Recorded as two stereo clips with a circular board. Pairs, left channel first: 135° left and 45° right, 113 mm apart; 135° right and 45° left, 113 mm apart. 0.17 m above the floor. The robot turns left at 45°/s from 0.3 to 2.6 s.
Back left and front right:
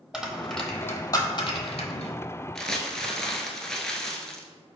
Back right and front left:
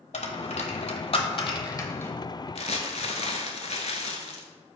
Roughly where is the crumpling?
Behind right.